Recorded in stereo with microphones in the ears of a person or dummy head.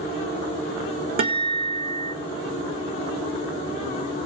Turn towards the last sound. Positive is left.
turn(degrees=-35)  # may be behind; listen again after turning